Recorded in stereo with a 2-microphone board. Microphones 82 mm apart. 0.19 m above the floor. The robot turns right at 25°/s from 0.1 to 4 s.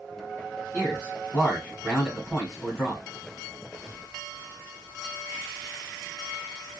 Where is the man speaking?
25° left (ahead or behind), 1.6 m; by 3.0 s centre (ahead or behind), 1.6 m.